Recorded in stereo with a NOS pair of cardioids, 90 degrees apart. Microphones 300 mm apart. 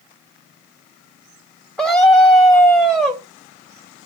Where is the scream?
Straight ahead, 1.1 m.